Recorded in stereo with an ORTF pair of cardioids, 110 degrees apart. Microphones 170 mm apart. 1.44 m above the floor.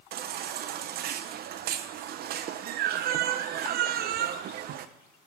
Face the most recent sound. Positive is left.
turn(degrees=-70)